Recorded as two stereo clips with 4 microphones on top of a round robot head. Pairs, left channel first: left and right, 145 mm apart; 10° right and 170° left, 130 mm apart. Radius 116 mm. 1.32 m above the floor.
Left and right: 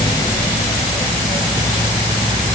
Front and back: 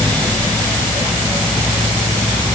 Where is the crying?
I don't hear crying.